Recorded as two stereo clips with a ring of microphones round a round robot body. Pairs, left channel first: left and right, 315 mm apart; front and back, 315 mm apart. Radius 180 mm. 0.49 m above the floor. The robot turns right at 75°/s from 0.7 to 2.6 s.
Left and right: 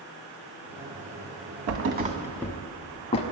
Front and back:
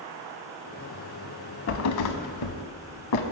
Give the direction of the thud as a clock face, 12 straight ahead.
2 o'clock.